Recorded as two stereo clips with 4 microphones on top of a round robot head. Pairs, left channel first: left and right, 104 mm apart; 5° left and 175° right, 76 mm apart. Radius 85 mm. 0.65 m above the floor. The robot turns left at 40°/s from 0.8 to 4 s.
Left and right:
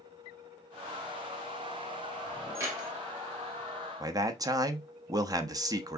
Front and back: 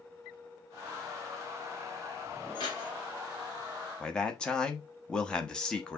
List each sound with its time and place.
2.5 s keys jangling: 25° right, 2 m; by 2.9 s 40° right, 2 m
4.0 s a man speaking: 70° right, 0.9 m